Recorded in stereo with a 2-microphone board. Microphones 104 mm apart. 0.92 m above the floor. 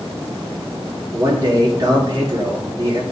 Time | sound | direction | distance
1.1 | a man speaking | 40° right (ahead or behind) | 2.5 m